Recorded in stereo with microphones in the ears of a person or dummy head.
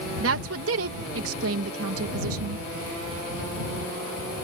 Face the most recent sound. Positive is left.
turn(degrees=-85)